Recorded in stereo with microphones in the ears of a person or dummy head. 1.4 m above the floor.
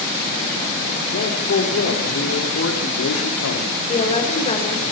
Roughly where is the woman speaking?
Left.